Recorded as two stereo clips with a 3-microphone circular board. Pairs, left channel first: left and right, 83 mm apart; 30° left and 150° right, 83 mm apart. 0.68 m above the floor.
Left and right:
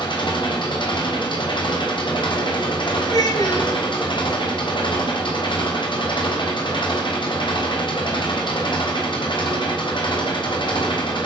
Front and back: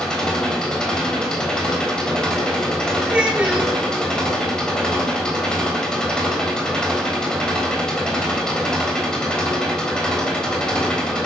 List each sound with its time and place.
0.0 s an engine running: 110° left, 3.5 m
3.1 s a child speaking: 130° left, 6 m